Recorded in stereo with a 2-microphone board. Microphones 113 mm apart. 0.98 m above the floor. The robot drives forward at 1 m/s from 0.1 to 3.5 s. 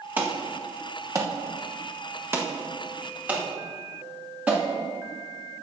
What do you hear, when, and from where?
0.2 s an alarm: 20° right (ahead or behind), 1.6 m; by 4.6 s 10° right (ahead or behind), 2.5 m